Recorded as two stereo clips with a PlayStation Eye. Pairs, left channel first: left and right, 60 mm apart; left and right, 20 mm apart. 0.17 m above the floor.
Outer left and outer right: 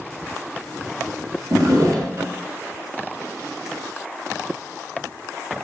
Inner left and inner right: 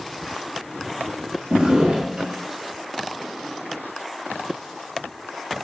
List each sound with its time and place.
1.5 s a drawer: 65° right (ahead or behind), 1.6 m